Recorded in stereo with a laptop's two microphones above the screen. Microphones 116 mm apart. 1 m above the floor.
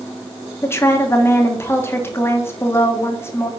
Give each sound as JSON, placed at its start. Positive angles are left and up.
{"t": 0.6, "sound": "a woman speaking", "side_deg": 20, "distance_m": 1.1}